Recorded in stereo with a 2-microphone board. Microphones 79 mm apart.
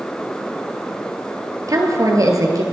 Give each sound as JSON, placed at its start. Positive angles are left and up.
{"t": 1.7, "sound": "a woman speaking", "side_deg": -50, "distance_m": 1.7}